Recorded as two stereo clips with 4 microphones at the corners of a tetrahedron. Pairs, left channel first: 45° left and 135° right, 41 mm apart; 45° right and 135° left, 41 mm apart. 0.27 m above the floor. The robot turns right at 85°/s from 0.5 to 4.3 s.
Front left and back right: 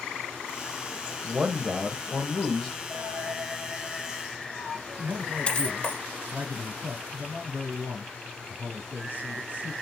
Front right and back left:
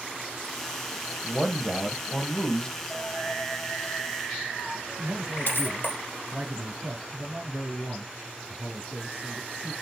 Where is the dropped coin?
135° right, 1.7 m; by 6.0 s 15° right, 1.7 m.